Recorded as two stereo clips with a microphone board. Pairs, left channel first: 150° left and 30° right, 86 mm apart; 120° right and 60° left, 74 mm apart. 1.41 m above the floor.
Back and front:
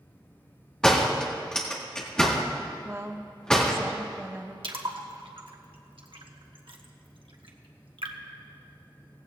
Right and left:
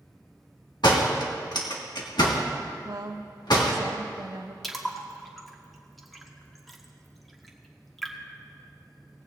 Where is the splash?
30° right, 1.2 m.